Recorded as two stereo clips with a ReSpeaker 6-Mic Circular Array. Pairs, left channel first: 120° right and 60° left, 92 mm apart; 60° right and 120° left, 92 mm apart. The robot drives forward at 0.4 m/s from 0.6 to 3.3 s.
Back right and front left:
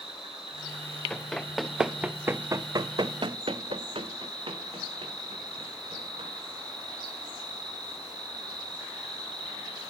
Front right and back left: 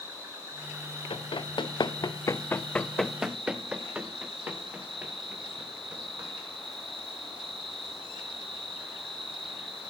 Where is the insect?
60° left, 1.6 m; by 9.9 s 100° left, 1.4 m.